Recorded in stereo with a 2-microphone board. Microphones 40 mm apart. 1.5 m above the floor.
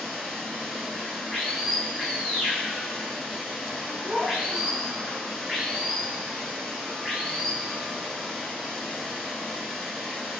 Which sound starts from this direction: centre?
Running water, at 0.0 s.